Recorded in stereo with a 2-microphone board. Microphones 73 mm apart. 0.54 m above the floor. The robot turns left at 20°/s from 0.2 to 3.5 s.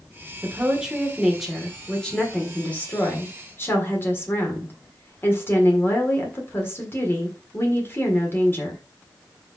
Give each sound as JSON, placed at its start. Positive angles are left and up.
{"t": 0.4, "sound": "a woman speaking", "azimuth_deg": -160, "distance_m": 1.7}